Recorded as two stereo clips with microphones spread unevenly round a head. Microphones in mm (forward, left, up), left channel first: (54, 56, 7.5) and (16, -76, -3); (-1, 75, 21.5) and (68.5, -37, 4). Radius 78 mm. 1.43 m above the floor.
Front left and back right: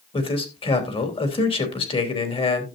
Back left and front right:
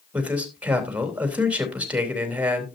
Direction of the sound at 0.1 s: 20° left.